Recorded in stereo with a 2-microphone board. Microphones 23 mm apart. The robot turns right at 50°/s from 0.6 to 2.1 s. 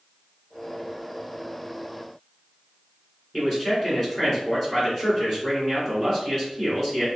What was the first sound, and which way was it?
A man speaking, 10° left (ahead or behind).